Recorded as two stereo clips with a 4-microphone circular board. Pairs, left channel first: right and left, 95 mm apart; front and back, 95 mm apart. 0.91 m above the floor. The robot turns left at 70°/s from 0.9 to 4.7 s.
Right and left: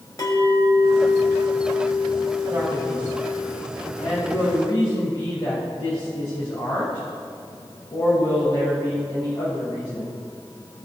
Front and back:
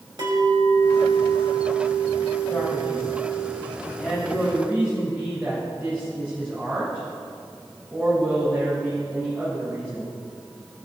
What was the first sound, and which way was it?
A clink, 145° right.